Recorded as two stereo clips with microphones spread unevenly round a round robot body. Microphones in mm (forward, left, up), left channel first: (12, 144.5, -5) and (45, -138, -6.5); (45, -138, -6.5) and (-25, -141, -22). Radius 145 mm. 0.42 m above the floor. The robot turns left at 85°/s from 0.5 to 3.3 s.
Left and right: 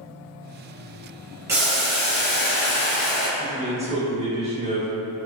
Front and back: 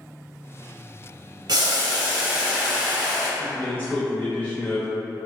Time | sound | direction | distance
1.5 | boiling | 165° right | 0.7 m
3.4 | a man speaking | 65° right | 0.8 m